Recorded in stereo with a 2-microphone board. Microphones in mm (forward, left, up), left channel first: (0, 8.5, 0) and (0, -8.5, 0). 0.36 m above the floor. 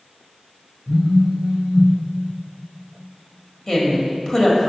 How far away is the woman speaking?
About 1.6 m.